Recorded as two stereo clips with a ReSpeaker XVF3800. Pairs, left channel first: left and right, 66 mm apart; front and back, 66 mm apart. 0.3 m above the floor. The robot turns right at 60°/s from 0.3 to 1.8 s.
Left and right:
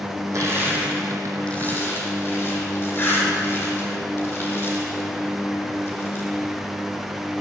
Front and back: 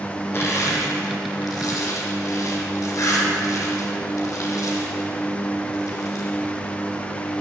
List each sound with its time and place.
0.3 s crushing: 55° right, 3.5 m; by 6.3 s 35° left, 3.5 m